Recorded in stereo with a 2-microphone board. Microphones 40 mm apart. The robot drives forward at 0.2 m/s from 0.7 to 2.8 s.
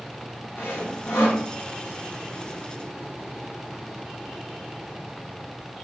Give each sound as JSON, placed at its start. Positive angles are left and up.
{"t": 0.6, "sound": "sawing", "side_deg": 85, "distance_m": 1.6}